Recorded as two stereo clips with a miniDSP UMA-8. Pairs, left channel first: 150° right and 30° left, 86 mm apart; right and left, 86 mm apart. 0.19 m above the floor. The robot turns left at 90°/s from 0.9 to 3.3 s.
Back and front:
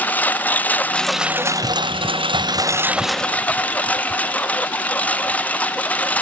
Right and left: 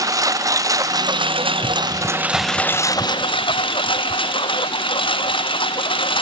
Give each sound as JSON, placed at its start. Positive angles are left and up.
{"t": 0.0, "sound": "a lawn mower", "azimuth_deg": 140}